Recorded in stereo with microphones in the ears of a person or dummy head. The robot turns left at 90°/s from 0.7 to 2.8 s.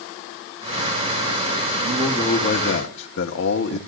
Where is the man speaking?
170° right, 1.8 m; by 3.8 s 105° left, 1.8 m.